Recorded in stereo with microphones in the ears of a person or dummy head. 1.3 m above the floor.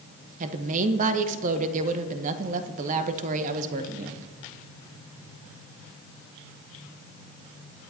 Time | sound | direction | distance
0.4 | a woman speaking | 45° right (ahead or behind) | 1.0 m